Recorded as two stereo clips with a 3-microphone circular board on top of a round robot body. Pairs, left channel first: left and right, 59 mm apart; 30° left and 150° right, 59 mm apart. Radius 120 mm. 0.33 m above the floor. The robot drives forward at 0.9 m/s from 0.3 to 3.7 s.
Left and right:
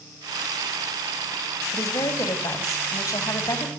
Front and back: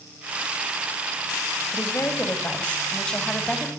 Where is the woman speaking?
80° left, 3 m; by 3.7 s 115° left, 3.5 m.